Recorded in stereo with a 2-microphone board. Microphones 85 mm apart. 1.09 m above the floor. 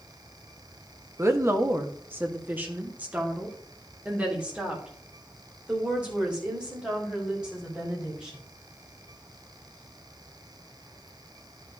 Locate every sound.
1.2 s a woman speaking: 35° right (ahead or behind), 1.1 m; by 8.4 s 10° right (ahead or behind), 5 m